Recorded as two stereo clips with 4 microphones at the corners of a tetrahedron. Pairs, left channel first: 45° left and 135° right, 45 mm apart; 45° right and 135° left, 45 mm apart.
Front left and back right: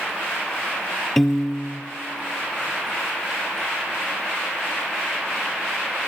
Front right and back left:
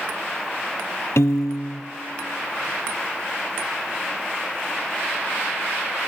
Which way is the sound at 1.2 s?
40° right.